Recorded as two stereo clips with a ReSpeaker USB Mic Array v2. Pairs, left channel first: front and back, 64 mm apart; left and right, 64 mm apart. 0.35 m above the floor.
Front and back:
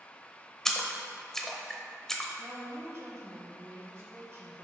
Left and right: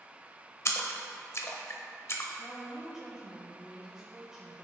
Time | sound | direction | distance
0.7 | a splash | 80° left | 0.8 m
2.4 | a woman speaking | 170° right | 1.4 m